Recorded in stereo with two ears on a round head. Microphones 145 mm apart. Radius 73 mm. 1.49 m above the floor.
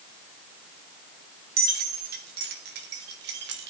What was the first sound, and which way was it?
Keys jangling, 60° right (ahead or behind).